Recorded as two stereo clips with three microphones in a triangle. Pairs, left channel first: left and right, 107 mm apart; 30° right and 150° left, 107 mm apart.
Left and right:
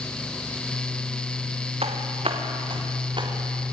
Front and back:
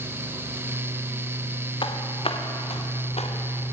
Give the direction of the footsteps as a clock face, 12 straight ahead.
2 o'clock.